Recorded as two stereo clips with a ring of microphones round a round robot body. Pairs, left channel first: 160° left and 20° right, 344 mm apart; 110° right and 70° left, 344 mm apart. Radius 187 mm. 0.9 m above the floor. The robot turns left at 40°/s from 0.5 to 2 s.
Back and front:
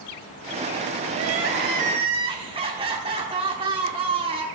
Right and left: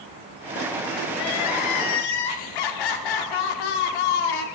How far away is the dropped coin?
I don't hear a dropped coin.